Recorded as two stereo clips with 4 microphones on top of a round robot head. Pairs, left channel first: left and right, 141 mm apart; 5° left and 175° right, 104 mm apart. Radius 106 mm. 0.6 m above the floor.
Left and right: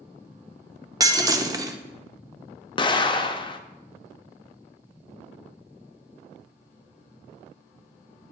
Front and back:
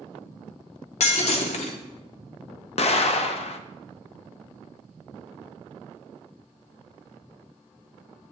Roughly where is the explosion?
Ahead left.